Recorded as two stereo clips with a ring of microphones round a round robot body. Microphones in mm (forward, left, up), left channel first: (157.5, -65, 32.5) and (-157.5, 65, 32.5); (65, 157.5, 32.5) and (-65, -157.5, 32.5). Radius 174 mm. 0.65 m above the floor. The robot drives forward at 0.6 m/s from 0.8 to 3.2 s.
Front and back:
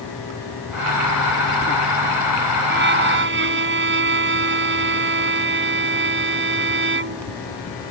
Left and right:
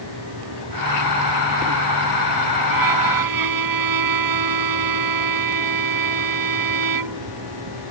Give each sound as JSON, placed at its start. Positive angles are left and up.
{"t": 2.7, "sound": "a violin", "azimuth_deg": -140}